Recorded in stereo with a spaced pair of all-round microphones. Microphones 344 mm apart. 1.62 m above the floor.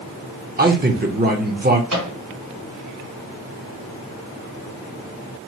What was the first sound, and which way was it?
A man speaking, 30° right (ahead or behind).